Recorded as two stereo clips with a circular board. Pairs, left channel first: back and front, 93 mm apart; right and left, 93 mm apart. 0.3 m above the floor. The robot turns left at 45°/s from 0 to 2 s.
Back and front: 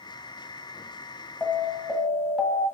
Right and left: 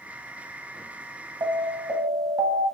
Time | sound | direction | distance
1.4 | an alarm | 115° left | 1.1 m